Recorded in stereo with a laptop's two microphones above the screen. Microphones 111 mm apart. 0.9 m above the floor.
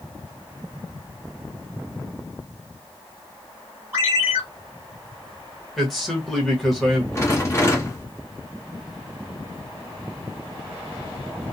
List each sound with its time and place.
3.9 s a ringtone: 20° right (ahead or behind), 1.5 m
5.8 s a man speaking: centre (ahead or behind), 1.0 m
7.2 s a rattle: 25° left (ahead or behind), 0.9 m